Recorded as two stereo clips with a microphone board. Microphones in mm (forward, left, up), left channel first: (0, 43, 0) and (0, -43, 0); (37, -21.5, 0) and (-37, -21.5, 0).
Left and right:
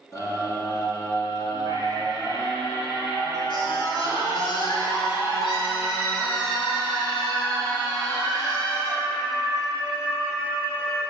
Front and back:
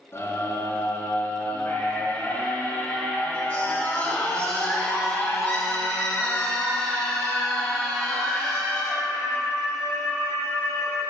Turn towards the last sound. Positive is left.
turn(degrees=85)